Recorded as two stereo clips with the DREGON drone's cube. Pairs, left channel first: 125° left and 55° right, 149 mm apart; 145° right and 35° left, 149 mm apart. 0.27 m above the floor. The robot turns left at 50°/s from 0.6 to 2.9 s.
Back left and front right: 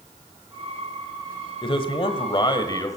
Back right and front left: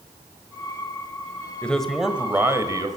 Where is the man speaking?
140° left, 1.6 m; by 3.0 s 75° left, 1.6 m.